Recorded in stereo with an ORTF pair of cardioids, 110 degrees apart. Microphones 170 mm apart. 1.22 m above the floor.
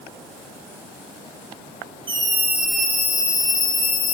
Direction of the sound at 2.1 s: 30° right.